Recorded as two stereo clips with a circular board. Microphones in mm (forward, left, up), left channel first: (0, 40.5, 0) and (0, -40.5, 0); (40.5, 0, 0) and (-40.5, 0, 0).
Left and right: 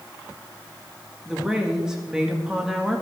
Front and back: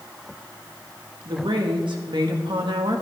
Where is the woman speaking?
175° right, 2.0 m.